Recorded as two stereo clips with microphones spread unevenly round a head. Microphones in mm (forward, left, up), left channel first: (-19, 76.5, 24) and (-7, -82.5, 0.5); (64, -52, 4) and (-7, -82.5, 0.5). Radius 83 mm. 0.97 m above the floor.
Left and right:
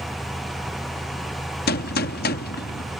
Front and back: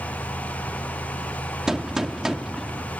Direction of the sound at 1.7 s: 115° left.